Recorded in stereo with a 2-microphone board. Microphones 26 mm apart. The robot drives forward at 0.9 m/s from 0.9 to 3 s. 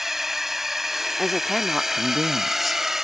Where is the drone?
10° right (ahead or behind); by 3.1 s 15° right (ahead or behind).